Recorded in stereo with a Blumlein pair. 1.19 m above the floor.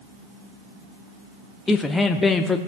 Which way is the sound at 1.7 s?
10° left.